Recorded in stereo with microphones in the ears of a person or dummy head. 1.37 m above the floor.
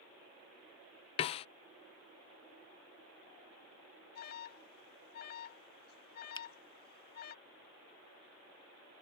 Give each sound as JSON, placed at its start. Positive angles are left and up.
{"t": 1.2, "sound": "a snare drum", "side_deg": 30}
{"t": 4.2, "sound": "an alarm", "side_deg": 50}
{"t": 6.3, "sound": "a finger snap", "side_deg": 25}